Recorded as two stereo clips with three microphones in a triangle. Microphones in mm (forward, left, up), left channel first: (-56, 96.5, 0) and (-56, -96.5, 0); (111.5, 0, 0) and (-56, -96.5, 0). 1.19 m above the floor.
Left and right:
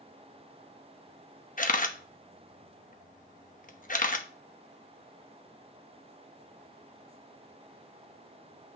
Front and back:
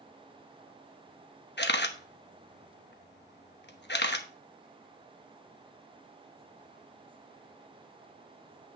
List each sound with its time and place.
1.6 s a camera shutter: 50° left, 0.9 m